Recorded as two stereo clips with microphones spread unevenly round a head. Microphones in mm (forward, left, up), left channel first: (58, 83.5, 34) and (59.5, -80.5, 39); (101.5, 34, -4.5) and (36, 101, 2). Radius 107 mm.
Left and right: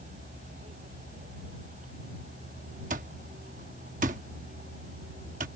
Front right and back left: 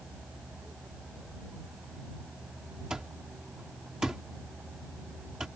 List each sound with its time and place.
0.0 s a vehicle: 145° right
2.9 s an alarm clock: 145° right